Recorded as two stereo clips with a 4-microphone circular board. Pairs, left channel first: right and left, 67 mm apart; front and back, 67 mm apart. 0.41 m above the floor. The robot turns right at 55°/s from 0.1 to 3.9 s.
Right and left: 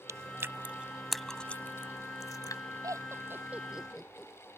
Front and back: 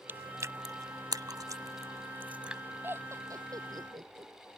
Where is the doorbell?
No doorbell in this recording.